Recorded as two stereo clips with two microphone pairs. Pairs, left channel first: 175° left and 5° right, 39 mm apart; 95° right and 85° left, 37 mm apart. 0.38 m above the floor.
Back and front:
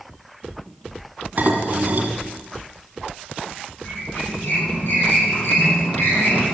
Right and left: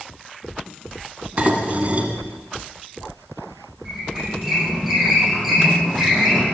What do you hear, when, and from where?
1.4 s dishes clattering: 30° left, 2 m
3.9 s a squeak: 170° left, 8 m